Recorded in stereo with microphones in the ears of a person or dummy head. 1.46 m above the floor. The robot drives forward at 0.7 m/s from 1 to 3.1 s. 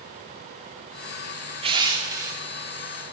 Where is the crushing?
25° right (ahead or behind), 0.6 m; by 2.4 s 15° right (ahead or behind), 1.2 m.